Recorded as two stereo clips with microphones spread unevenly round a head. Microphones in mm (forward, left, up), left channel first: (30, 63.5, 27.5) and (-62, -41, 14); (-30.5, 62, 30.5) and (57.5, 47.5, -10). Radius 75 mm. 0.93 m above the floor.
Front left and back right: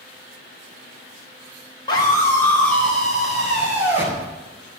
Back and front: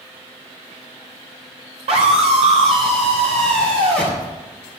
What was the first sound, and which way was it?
A scream, 20° right.